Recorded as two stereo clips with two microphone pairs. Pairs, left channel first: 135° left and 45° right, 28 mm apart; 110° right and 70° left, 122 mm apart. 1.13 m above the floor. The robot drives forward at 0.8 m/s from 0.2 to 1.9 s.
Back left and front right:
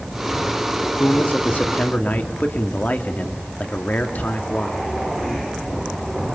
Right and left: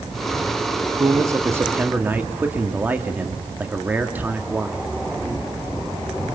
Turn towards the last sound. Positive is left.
turn(degrees=145)